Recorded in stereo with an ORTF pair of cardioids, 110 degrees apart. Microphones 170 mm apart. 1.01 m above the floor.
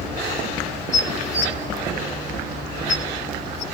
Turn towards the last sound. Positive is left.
turn(degrees=40)